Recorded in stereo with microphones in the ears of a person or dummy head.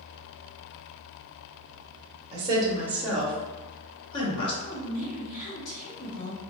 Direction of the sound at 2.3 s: 35° right (ahead or behind).